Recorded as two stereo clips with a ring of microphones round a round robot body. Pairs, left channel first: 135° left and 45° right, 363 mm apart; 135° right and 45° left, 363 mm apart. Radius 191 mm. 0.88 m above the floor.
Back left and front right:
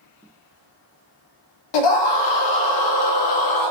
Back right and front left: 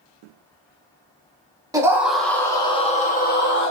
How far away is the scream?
About 1.4 m.